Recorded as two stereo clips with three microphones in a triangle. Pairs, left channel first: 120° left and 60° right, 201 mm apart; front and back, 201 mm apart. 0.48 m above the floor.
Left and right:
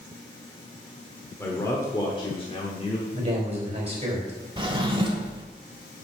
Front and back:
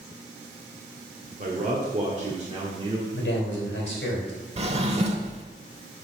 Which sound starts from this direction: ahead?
A man speaking, at 3.1 s.